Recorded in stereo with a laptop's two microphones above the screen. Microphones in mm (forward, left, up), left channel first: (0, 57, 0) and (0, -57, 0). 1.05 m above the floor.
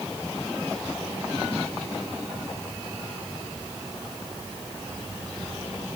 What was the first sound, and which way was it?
Only background noise.